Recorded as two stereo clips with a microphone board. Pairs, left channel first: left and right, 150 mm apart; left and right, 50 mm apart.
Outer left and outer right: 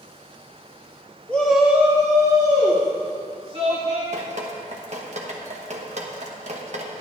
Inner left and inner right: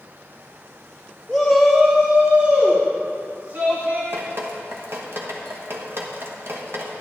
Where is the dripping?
50° right (ahead or behind), 1.2 m.